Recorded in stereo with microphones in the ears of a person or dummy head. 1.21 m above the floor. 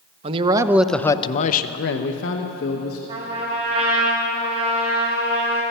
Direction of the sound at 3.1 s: 30° right (ahead or behind).